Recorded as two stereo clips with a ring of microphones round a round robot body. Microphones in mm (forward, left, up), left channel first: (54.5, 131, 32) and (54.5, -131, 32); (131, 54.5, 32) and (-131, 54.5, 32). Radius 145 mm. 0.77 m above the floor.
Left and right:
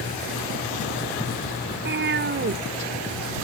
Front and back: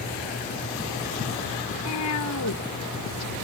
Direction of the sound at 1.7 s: 40° right.